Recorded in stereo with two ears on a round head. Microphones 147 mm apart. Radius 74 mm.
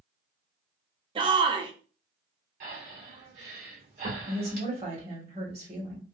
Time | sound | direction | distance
1.1 | a shout | 30° right (ahead or behind) | 0.5 m
2.6 | breathing | 50° right (ahead or behind) | 1.6 m
4.2 | a woman speaking | 40° right (ahead or behind) | 1.7 m